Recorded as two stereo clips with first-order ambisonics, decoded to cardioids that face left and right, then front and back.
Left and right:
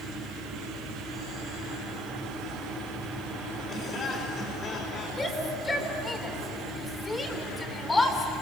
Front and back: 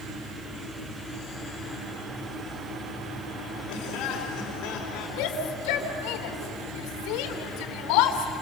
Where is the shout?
10° left, 3 m.